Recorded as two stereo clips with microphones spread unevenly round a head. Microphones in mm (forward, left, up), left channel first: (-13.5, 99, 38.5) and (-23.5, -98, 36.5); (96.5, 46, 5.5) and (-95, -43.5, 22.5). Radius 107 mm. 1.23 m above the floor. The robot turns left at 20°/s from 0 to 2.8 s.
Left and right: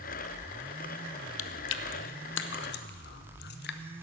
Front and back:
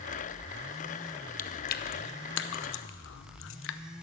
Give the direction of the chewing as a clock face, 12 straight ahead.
9 o'clock.